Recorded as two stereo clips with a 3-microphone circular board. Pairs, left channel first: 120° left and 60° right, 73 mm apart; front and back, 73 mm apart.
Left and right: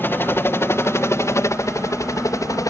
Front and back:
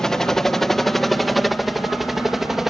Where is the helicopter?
80° left; by 2.7 s 95° left.